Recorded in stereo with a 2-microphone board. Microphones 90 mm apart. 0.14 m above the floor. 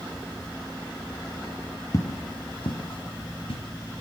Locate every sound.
1.9 s footsteps: 35° left (ahead or behind), 2 m; by 3.6 s 85° left, 3 m